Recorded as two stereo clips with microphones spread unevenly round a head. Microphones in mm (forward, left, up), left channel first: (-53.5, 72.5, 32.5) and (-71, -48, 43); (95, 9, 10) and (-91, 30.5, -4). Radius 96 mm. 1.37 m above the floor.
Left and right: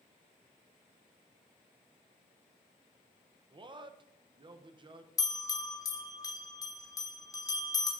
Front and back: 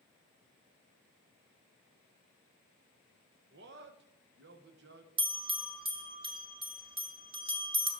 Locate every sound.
3.5 s a man speaking: 150° right, 0.8 m
5.2 s a bell: 130° left, 1.1 m